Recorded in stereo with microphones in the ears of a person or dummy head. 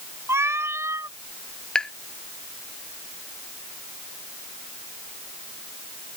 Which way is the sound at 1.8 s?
5° left (ahead or behind).